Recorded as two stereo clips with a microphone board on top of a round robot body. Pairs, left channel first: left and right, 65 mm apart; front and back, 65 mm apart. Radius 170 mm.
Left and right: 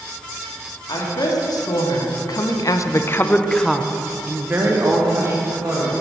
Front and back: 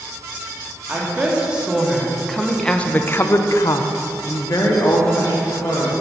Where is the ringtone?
I don't hear a ringtone.